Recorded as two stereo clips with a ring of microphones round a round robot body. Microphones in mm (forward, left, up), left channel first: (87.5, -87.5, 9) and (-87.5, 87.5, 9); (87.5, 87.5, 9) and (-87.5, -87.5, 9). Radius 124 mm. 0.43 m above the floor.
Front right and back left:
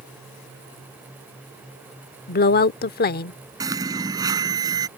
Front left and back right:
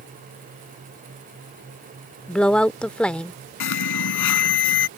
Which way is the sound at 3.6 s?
60° left.